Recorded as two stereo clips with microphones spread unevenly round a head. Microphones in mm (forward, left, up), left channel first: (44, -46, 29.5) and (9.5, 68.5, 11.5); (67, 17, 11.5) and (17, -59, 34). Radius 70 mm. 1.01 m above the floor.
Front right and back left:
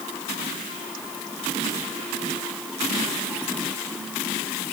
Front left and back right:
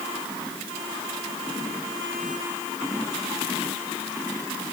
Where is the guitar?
I don't hear a guitar.